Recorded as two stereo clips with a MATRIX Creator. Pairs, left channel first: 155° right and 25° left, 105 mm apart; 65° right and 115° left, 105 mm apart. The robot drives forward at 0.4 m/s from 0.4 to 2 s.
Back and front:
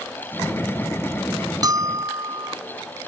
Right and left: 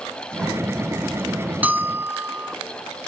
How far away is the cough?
No cough in this recording.